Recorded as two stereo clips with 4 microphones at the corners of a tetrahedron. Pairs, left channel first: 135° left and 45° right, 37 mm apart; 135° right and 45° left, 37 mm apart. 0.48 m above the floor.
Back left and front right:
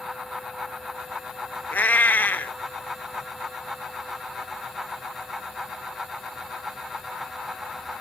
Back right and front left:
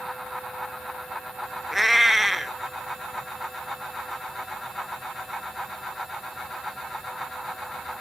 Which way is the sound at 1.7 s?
135° left.